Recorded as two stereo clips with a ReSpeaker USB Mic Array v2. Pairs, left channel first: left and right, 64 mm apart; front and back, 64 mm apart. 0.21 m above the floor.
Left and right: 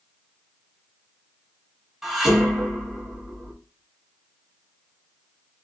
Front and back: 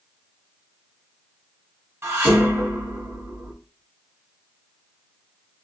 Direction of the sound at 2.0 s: 170° right.